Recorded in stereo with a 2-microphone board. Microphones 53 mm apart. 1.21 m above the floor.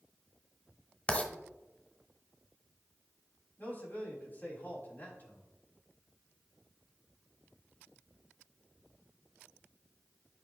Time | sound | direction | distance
1.1 | writing | 25° left (ahead or behind) | 1.1 m
3.6 | a man speaking | 40° left (ahead or behind) | 3.5 m